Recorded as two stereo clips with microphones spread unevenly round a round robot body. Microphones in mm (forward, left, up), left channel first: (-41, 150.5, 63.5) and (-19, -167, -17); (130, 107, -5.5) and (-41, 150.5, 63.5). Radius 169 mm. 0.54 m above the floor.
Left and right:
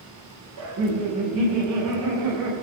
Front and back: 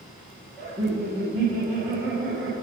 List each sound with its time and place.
0.6 s laughter: 90° right, 4 m